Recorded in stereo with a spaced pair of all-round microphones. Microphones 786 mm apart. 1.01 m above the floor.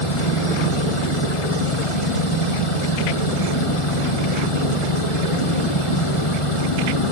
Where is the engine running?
40° left (ahead or behind).